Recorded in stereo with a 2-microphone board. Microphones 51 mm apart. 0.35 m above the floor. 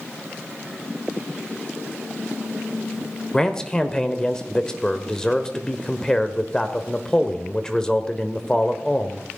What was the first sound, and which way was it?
A man speaking, 15° left (ahead or behind).